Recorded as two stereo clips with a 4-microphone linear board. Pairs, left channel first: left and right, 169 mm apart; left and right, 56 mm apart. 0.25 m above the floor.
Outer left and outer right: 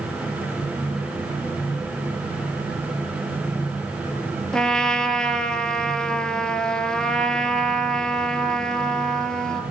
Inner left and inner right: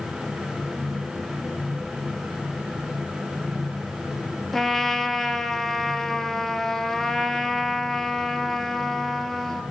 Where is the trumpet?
5° left (ahead or behind), 0.8 m.